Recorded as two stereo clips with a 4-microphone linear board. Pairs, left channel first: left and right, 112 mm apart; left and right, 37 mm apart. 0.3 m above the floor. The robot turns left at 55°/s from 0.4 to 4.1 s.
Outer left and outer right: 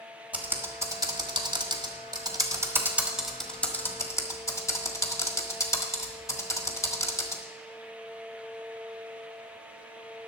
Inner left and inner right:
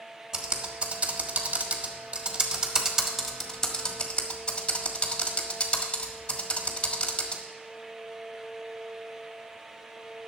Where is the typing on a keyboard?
15° right (ahead or behind), 1.4 m; by 7.4 s 30° left (ahead or behind), 1.4 m.